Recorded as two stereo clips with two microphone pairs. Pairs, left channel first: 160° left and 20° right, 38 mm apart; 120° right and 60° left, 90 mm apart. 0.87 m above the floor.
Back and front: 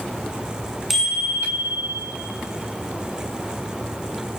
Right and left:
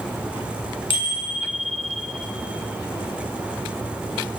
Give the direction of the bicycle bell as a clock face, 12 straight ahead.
4 o'clock.